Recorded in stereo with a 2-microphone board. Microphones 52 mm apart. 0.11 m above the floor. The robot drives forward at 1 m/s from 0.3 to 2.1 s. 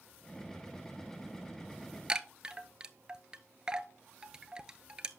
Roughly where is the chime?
Centre.